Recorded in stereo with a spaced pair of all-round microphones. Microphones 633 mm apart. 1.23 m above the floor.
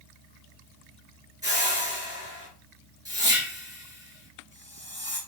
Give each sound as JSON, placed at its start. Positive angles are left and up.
{"t": 1.4, "sound": "a whoosh", "side_deg": -5, "distance_m": 3.0}